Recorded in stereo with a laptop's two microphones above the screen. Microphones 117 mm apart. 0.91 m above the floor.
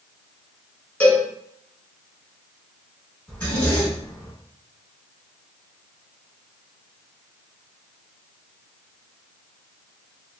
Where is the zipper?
15° left (ahead or behind), 1.8 m.